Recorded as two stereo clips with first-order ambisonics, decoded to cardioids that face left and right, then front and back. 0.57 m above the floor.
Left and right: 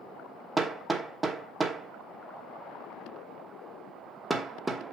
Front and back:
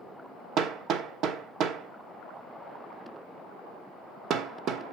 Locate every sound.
0.6 s hammering: 165° right, 1.0 m